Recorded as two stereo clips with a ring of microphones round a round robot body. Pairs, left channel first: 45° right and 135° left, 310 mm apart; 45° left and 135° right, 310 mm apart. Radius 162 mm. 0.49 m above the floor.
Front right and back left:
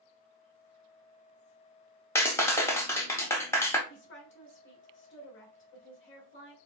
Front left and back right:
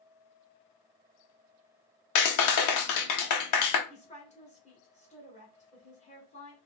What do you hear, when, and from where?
2.1 s a clap: 35° left, 0.9 m
3.9 s a woman speaking: 15° right, 1.6 m